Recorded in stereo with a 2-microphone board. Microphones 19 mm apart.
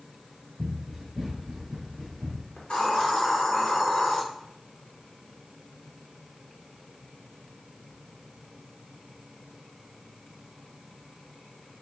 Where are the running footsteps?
15° right (ahead or behind), 1.8 m; by 2.5 s 25° left (ahead or behind), 2 m.